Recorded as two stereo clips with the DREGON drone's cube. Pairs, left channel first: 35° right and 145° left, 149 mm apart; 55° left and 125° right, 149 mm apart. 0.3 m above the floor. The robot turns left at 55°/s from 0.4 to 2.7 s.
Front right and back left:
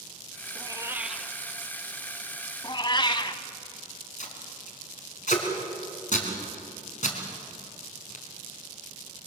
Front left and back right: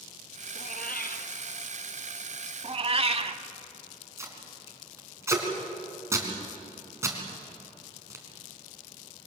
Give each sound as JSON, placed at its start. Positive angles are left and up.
{"t": 0.6, "sound": "a cat meowing", "azimuth_deg": 90, "distance_m": 1.1}
{"t": 2.6, "sound": "a cat meowing", "azimuth_deg": -85, "distance_m": 0.9}
{"t": 4.2, "sound": "tape being pulled", "azimuth_deg": -55, "distance_m": 3.5}